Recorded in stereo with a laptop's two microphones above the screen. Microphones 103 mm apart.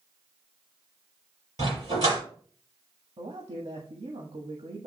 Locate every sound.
1.6 s a dog barking: 40° right (ahead or behind), 6 m
3.2 s a man speaking: 70° right (ahead or behind), 1.5 m